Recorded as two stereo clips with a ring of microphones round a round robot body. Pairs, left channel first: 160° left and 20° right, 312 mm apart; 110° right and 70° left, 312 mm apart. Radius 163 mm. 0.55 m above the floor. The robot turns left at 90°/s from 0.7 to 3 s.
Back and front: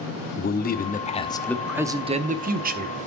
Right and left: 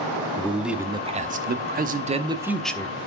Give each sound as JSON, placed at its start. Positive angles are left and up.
{"t": 0.4, "sound": "a man speaking", "azimuth_deg": 150, "distance_m": 0.7}